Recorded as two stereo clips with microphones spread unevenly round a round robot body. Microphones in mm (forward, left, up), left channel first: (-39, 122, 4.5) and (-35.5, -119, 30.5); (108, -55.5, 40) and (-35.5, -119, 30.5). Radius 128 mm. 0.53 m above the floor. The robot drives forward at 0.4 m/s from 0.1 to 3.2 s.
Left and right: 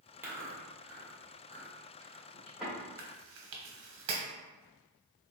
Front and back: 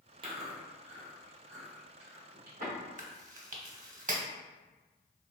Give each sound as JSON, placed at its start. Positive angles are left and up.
{"t": 0.2, "sound": "chewing", "azimuth_deg": -175, "distance_m": 1.0}
{"t": 3.0, "sound": "chewing", "azimuth_deg": -120, "distance_m": 0.9}